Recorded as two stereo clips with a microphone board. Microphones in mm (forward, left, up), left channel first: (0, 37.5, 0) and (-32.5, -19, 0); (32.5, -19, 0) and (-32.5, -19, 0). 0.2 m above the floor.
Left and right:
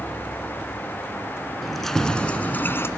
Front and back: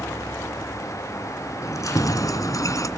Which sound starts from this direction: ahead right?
Keys jangling, at 1.6 s.